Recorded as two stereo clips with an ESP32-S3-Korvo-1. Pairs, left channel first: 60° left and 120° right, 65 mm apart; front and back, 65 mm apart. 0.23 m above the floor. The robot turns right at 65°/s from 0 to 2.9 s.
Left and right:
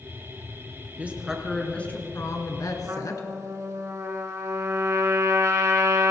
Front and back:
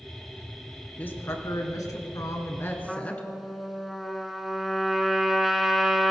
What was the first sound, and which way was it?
A woman speaking, 60° right.